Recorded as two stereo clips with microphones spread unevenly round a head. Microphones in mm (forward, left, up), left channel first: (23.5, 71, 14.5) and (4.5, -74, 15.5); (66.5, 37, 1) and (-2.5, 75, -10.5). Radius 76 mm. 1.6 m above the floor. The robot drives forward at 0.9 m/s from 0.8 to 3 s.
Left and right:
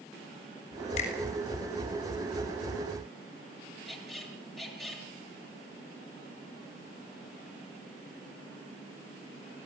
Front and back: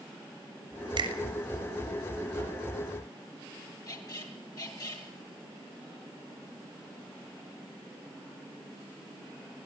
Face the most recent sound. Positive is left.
turn(degrees=-5)